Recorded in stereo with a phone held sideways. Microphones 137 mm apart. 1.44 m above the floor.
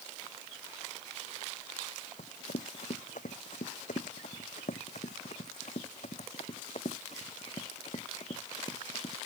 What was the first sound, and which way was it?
Running footsteps, 65° left (ahead or behind).